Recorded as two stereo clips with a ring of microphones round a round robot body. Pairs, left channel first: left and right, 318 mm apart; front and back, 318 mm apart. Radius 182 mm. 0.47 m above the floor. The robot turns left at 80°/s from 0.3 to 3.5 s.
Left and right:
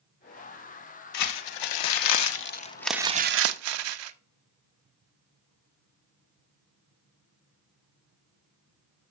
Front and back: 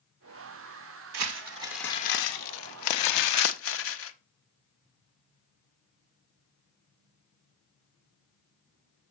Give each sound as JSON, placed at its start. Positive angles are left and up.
{"t": 1.1, "sound": "crumpling", "azimuth_deg": 140, "distance_m": 0.6}